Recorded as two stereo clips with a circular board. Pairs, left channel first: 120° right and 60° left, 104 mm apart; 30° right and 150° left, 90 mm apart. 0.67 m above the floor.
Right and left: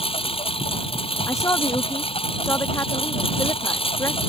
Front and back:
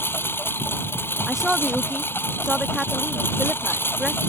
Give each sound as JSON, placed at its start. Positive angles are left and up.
{"t": 0.0, "sound": "a lawn mower", "azimuth_deg": -95}
{"t": 1.3, "sound": "a woman speaking", "azimuth_deg": -125}